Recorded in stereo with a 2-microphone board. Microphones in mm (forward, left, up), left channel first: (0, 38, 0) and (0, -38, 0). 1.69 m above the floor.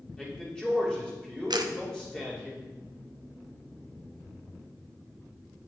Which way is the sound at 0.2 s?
10° left (ahead or behind).